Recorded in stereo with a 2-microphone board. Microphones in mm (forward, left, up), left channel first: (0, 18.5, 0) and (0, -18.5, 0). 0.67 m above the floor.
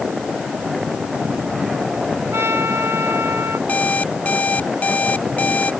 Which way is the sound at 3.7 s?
35° left (ahead or behind).